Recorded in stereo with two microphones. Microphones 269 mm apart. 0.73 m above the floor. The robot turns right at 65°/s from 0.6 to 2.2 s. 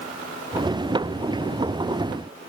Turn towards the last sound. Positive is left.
No sound to turn to.